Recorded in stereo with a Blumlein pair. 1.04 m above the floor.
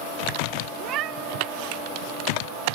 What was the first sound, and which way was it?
A cat meowing, 35° right.